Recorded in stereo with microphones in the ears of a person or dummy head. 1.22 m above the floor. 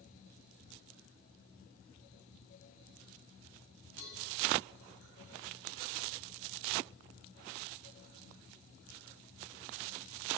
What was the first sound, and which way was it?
A cowbell, 75° left (ahead or behind).